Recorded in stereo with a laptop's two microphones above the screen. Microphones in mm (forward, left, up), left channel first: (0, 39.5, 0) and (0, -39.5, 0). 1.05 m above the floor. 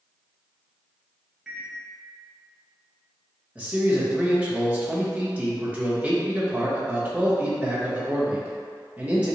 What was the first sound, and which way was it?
A microwave, 5° right (ahead or behind).